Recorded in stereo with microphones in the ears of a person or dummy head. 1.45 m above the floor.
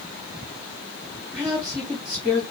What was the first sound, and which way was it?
A woman speaking, 5° right (ahead or behind).